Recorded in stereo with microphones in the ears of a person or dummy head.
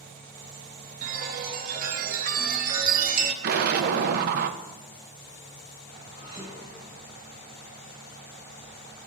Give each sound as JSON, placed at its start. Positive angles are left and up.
{"t": 1.0, "sound": "a chime", "side_deg": -55, "distance_m": 1.2}
{"t": 3.4, "sound": "an explosion", "side_deg": -60, "distance_m": 0.8}
{"t": 6.1, "sound": "dishes clattering", "side_deg": -30, "distance_m": 5.0}